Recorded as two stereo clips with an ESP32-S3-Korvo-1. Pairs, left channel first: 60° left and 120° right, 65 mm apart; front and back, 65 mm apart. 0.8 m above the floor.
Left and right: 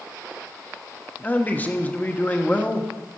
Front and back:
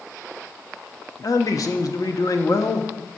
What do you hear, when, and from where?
1.2 s a man speaking: straight ahead, 0.9 m